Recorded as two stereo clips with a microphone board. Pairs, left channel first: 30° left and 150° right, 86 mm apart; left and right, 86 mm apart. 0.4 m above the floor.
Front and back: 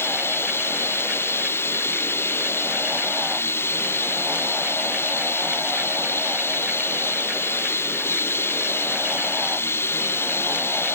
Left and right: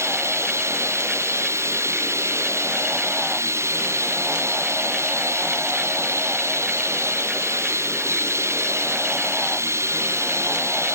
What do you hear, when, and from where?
0.0 s running water: 30° right